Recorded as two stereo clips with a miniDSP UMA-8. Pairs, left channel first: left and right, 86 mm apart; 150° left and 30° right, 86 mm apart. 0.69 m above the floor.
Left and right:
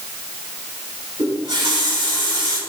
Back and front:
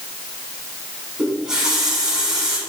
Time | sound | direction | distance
1.2 | a running tap | 110° right | 4.5 m